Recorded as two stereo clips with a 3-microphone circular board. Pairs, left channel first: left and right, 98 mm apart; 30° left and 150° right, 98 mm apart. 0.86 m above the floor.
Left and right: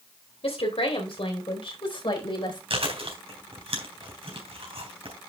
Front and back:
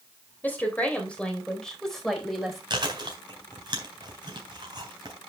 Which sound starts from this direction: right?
Chewing, at 2.7 s.